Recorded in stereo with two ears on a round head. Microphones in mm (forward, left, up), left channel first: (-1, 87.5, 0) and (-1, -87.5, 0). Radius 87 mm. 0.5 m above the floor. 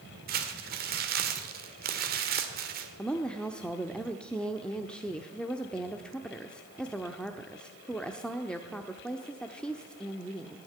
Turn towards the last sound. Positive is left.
turn(degrees=5)  # may be behind; listen again after turning